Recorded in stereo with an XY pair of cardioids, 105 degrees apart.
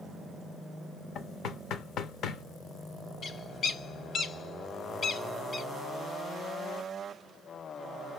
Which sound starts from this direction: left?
Knocking, at 1.1 s.